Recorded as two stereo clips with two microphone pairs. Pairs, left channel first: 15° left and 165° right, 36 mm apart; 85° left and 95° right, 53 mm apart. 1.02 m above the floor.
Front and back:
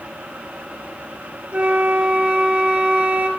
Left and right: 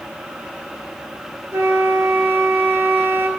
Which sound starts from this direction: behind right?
A flute, at 1.5 s.